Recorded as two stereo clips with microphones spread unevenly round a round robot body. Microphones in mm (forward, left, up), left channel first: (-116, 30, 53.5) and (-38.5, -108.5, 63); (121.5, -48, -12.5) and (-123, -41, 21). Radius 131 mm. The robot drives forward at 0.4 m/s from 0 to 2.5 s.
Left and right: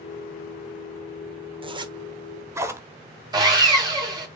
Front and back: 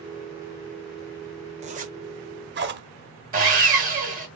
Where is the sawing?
125° right, 2.5 m.